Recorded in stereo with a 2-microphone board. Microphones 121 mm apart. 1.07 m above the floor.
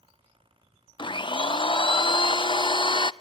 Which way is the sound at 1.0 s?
40° left (ahead or behind).